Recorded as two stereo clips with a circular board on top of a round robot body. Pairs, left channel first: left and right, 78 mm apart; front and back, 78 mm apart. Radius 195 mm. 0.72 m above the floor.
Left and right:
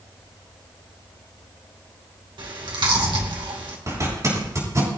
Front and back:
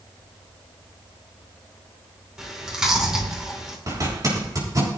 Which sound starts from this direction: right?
Chewing, at 2.4 s.